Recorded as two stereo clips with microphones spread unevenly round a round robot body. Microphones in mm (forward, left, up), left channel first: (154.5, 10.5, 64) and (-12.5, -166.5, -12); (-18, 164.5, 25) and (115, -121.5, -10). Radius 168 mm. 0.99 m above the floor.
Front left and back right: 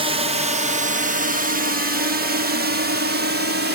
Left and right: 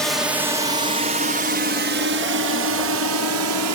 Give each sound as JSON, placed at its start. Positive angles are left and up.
{"t": 0.0, "sound": "a drone", "azimuth_deg": -150}